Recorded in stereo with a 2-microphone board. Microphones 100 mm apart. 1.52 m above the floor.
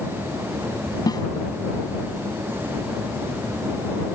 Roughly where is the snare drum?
Left.